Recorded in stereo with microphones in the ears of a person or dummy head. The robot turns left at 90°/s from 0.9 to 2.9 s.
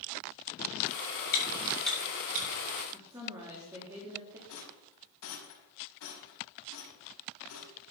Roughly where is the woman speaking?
Centre.